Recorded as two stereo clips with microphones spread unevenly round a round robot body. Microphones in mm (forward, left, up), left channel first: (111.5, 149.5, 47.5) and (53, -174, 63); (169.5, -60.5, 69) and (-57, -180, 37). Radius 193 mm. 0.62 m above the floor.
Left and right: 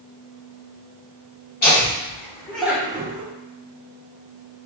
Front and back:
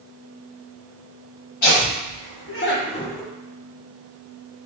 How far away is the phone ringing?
I don't hear a phone ringing.